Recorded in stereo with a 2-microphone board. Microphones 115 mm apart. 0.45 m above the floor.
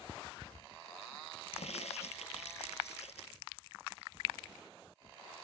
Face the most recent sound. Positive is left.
turn(degrees=85)